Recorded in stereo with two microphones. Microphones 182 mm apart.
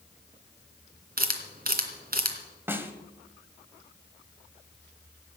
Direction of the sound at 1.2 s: 55° right (ahead or behind).